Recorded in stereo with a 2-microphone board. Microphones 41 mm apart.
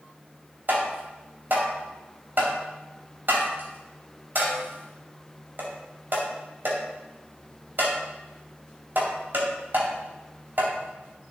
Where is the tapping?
60° right (ahead or behind), 2.5 m.